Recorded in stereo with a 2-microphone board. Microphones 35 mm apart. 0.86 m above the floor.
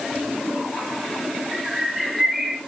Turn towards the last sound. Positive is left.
turn(degrees=-10)  # may be behind; listen again after turning